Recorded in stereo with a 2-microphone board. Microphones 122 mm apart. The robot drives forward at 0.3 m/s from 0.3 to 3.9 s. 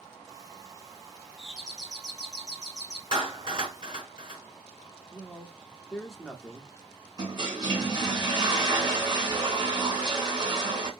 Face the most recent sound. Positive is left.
turn(degrees=-35)  # may be behind; listen again after turning